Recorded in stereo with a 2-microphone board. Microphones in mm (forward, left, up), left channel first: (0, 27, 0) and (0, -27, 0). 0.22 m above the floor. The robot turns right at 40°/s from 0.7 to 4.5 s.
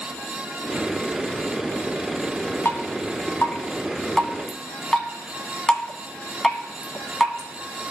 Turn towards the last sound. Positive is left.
turn(degrees=10)  # may be behind; listen again after turning